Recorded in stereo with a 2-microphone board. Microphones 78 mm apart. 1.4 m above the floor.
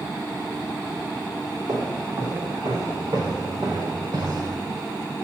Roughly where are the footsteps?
Right.